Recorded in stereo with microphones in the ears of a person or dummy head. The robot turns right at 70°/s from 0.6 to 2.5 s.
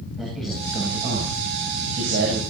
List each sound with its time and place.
0.2 s a man speaking: straight behind, 8 m; by 2.4 s 50° right, 8 m